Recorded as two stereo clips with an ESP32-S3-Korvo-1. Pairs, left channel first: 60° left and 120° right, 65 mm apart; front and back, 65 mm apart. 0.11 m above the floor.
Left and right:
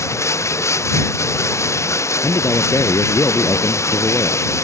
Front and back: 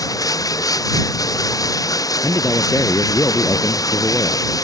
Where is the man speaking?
30° left.